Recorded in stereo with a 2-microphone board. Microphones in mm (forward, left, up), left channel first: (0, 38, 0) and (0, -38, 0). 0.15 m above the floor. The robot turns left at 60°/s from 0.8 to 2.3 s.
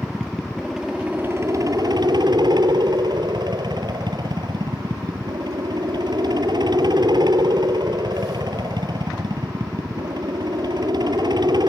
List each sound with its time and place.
0.0 s a helicopter: 5° right; by 11.7 s 95° right